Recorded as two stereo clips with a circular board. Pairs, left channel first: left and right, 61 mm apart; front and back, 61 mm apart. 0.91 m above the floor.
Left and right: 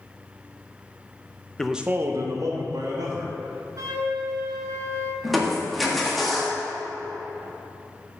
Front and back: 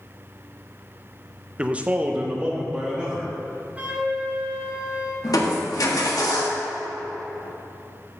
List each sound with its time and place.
1.6 s a man speaking: 145° left, 0.5 m; by 3.4 s 105° right, 2 m
3.8 s a flute: 115° right, 1.7 m
5.2 s crushing: straight ahead, 1.5 m